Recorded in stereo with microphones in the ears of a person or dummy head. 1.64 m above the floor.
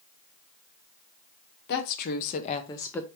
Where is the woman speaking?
60° left (ahead or behind), 1.1 m; by 3.1 s 5° left (ahead or behind), 0.6 m.